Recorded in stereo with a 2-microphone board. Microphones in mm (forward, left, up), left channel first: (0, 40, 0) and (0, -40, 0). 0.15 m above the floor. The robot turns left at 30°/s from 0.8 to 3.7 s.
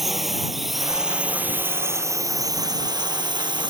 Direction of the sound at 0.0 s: 5° right.